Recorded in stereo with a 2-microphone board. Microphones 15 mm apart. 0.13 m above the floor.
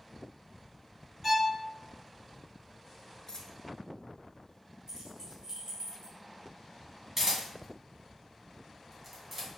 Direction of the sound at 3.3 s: 45° left (ahead or behind).